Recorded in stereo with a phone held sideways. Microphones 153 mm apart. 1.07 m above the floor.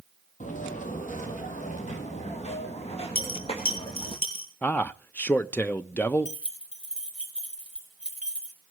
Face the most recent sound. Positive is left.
turn(degrees=-5)  # may be behind; listen again after turning